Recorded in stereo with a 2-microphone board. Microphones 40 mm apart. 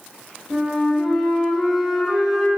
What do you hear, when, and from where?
0.5 s a flute: centre (ahead or behind), 0.6 m